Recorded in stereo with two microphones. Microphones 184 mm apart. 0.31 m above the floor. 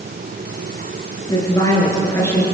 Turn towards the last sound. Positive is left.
turn(degrees=15)  # may be behind; listen again after turning